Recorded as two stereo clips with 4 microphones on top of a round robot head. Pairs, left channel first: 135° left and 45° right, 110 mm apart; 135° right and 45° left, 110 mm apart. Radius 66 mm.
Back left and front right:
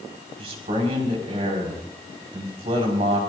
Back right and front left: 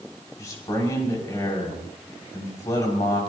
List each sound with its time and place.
0.4 s a man speaking: 75° right, 5.5 m